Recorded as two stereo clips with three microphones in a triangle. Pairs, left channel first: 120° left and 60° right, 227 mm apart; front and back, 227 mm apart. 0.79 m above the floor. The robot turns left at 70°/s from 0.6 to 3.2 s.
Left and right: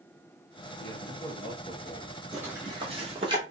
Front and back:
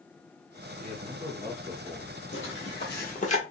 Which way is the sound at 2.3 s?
25° left.